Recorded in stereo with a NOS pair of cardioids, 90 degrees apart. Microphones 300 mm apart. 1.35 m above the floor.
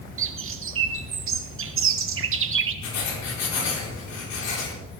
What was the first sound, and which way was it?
A bird, 45° right.